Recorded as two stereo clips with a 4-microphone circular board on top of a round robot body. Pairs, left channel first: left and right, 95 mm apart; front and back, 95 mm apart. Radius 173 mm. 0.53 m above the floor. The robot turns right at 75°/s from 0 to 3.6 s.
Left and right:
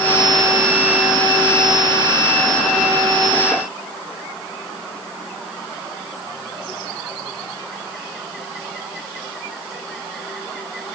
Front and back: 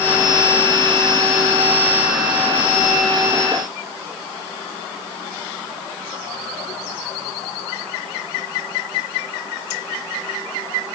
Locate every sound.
Only background noise.